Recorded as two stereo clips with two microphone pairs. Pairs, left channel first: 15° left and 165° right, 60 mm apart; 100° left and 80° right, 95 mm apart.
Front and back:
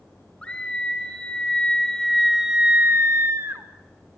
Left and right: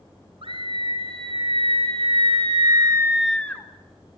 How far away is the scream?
About 3.5 m.